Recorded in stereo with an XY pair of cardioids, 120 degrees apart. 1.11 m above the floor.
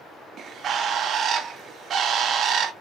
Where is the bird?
55° right, 0.7 m.